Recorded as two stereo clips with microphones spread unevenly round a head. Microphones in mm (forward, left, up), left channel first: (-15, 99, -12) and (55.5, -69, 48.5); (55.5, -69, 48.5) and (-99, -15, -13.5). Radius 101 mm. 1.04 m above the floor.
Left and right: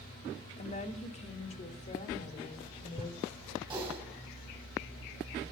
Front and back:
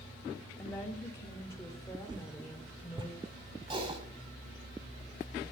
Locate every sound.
0.6 s a woman speaking: 60° left, 2.5 m
2.1 s a whoosh: 130° right, 1.4 m
3.7 s typing on a keyboard: 140° right, 5.5 m